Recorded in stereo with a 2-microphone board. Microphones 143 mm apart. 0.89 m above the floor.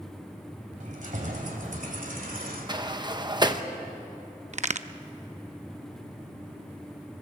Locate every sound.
0.8 s keys jangling: 60° right (ahead or behind), 3.5 m; by 3.0 s 85° right, 1.8 m
2.7 s a sliding door: 30° right (ahead or behind), 0.9 m
4.5 s a crack: 55° right (ahead or behind), 0.6 m